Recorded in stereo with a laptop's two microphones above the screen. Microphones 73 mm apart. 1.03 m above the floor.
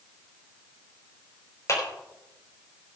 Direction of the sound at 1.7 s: 45° left (ahead or behind).